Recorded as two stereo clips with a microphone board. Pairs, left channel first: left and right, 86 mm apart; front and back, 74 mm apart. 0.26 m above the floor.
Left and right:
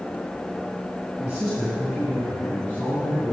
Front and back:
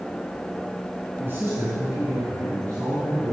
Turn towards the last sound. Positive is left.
turn(degrees=140)